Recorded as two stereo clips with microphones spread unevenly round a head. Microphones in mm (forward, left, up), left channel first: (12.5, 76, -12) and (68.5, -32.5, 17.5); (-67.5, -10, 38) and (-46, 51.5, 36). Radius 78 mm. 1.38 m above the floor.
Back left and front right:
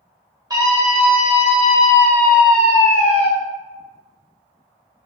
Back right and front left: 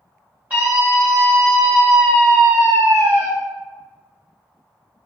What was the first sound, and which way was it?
A scream, straight ahead.